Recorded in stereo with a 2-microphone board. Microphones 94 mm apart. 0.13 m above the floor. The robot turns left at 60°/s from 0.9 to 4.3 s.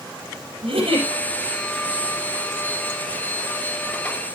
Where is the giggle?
70° right (ahead or behind), 5.5 m; by 1.1 s 65° right (ahead or behind), 5.5 m.